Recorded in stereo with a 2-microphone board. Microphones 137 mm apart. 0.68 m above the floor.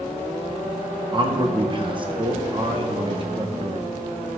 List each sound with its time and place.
1.1 s a man speaking: 35° right (ahead or behind), 0.8 m